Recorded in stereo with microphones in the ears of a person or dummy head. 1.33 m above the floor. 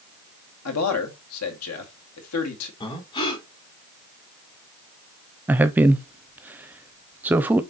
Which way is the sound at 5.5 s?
10° right (ahead or behind).